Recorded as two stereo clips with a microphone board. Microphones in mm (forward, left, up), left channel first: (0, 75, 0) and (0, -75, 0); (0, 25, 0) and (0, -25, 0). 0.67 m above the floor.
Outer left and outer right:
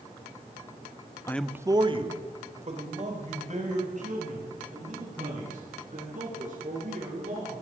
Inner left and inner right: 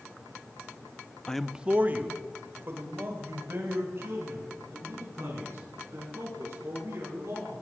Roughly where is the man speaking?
Centre.